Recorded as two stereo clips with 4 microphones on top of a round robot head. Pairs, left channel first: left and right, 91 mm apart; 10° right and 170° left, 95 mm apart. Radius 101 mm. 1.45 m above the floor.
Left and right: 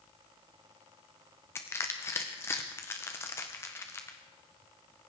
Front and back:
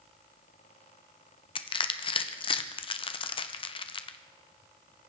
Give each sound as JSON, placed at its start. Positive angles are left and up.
{"t": 1.6, "sound": "crushing", "azimuth_deg": 20, "distance_m": 0.9}